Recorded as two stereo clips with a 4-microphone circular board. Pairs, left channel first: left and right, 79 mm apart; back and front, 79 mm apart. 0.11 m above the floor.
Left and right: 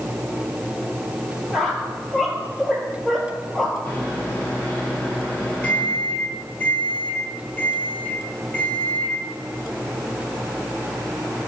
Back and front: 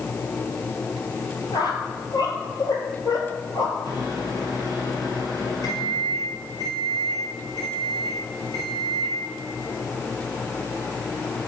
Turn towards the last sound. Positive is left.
turn(degrees=150)